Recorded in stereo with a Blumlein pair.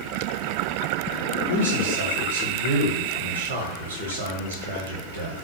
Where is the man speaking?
70° right, 0.6 m.